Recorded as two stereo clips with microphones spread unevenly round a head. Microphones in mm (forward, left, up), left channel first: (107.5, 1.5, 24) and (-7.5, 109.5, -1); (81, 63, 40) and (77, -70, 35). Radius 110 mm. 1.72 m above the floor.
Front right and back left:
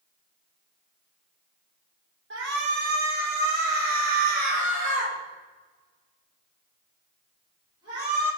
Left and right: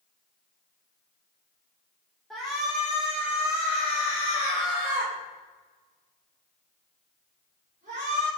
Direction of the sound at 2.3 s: 175° left.